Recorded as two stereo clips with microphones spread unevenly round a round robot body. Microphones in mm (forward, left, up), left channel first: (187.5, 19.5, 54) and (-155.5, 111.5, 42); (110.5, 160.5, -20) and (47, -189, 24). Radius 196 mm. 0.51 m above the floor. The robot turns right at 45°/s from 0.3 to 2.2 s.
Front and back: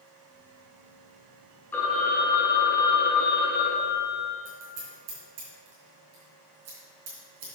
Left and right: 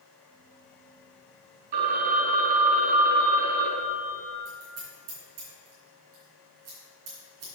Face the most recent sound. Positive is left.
turn(degrees=-150)